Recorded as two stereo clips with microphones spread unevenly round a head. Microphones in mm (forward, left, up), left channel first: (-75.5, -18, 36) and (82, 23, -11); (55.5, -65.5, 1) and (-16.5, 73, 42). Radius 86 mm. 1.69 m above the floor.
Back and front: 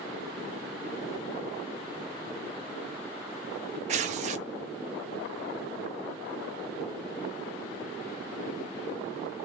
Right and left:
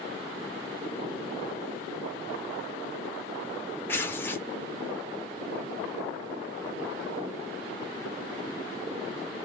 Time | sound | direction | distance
3.9 | tearing paper | 35° left | 0.5 m